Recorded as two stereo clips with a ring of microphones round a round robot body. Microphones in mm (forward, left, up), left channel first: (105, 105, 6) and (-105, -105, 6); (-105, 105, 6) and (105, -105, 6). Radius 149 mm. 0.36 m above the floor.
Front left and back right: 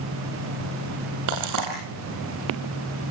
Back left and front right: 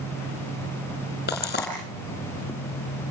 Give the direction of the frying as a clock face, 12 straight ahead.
6 o'clock.